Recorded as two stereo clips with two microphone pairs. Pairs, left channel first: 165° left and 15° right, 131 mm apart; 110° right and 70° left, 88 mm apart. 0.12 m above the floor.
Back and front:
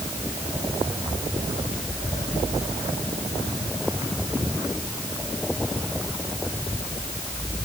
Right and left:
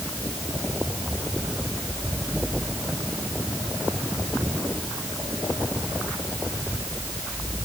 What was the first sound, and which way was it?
Only background noise.